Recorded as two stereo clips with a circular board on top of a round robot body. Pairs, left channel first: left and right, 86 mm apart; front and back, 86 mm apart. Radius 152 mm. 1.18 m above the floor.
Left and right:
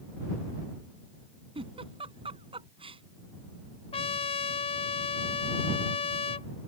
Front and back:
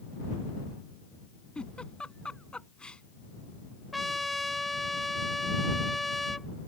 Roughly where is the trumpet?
Left.